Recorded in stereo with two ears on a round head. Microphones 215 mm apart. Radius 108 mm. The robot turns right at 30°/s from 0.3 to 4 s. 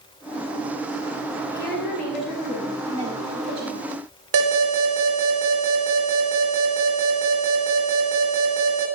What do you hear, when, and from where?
1.5 s a woman speaking: 155° left, 5.5 m; by 3.8 s 135° right, 5.5 m
4.3 s an alarm: 65° right (ahead or behind), 4 m